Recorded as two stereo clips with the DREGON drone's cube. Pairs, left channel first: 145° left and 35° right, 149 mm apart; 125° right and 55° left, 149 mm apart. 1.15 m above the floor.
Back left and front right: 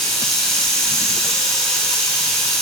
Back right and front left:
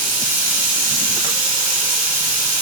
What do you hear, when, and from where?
0.0 s running water: 60° left, 1.5 m